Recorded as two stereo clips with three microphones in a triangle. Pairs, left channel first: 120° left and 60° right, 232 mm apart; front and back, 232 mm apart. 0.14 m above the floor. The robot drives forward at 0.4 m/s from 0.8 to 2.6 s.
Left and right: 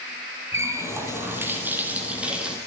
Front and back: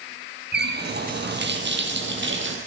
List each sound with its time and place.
0.5 s a running tap: 140° right, 3 m; by 2.6 s 145° right, 3.5 m